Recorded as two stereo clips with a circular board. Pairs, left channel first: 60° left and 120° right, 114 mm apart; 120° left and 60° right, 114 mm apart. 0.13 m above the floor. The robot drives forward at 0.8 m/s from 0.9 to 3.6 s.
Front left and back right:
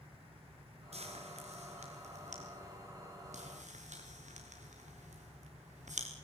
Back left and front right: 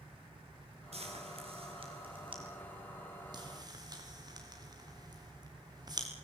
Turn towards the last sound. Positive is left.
turn(degrees=-115)